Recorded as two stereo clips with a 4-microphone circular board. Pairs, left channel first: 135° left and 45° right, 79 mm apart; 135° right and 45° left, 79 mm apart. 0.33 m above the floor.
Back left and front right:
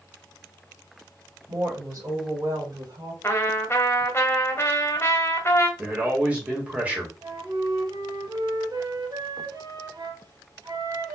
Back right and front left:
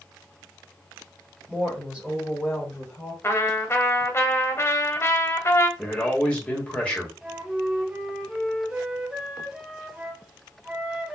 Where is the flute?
35° right, 0.9 m.